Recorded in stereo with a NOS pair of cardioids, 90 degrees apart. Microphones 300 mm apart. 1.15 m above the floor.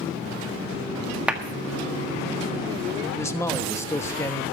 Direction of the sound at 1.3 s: 5° right.